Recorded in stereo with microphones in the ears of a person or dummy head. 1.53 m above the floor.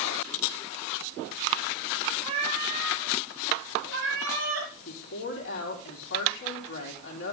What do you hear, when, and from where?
2.2 s a cat meowing: 35° right (ahead or behind), 3.5 m; by 4.7 s 65° right (ahead or behind), 3.5 m
4.8 s a woman speaking: 70° left (ahead or behind), 3.5 m